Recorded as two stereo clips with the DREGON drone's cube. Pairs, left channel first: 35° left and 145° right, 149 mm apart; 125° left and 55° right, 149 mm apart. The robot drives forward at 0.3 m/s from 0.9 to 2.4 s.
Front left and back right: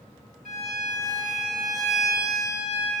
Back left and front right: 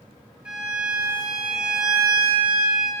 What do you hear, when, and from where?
0.5 s a violin: 140° right, 4.5 m; by 2.9 s 145° right, 5 m